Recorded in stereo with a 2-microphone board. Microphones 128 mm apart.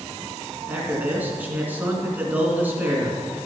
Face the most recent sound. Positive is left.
turn(degrees=-15)  # may be behind; listen again after turning